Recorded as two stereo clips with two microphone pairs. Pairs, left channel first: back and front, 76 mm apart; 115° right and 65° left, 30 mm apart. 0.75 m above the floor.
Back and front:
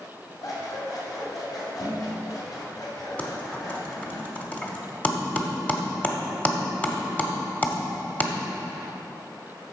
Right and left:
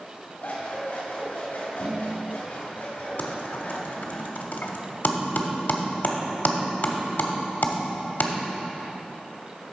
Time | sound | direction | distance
0.4 | scissors | 145° right | 2.5 m
3.2 | typing on a keyboard | 110° right | 1.0 m